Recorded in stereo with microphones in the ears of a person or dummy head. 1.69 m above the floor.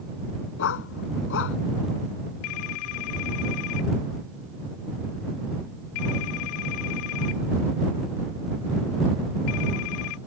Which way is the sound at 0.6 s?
65° left (ahead or behind).